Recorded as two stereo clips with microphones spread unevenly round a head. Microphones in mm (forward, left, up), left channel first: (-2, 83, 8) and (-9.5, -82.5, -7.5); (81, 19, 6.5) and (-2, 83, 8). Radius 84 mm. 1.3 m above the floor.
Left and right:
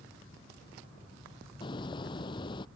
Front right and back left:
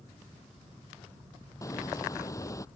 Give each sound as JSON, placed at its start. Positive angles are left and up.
{"t": 1.6, "sound": "a hiss", "azimuth_deg": 25}